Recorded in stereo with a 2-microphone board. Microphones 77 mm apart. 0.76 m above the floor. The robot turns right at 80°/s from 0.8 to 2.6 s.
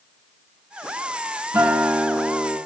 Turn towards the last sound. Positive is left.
turn(degrees=45)